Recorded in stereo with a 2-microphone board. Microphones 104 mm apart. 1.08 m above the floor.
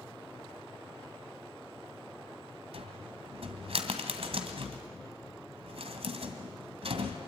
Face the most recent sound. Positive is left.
turn(degrees=-65)  # may be behind; listen again after turning